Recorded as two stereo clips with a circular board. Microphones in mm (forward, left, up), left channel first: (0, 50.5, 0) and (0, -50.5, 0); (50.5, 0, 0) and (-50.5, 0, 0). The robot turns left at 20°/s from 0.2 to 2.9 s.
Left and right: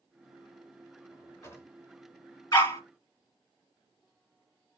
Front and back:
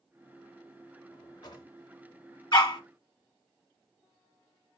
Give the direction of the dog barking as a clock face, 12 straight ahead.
10 o'clock.